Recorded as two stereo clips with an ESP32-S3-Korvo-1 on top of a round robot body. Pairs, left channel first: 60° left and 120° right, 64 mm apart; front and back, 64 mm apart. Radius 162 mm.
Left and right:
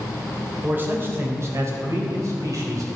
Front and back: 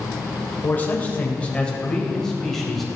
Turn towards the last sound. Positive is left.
turn(degrees=-90)